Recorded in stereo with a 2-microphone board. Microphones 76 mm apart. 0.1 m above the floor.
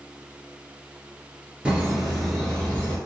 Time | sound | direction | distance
1.6 | laughter | 15° right (ahead or behind) | 1.4 m